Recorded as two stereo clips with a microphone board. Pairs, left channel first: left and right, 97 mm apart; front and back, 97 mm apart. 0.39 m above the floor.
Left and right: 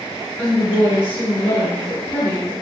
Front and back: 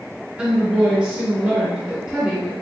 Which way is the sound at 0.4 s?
115° left.